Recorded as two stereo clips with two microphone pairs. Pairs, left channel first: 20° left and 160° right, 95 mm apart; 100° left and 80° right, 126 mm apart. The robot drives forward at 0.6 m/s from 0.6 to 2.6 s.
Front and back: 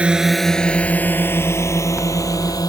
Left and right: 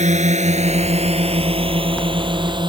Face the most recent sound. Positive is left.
turn(degrees=-30)